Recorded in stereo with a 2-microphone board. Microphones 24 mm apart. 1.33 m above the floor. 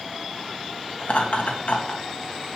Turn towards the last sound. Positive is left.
turn(degrees=70)  # may be behind; listen again after turning